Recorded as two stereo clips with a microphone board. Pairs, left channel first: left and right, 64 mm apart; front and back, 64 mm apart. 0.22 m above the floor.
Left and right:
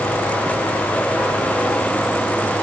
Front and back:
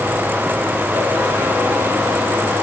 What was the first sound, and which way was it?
Only background noise.